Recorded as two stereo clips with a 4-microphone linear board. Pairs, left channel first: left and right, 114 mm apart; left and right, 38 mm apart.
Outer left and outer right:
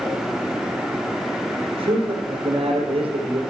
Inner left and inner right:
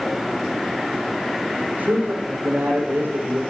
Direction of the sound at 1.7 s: 55° right (ahead or behind).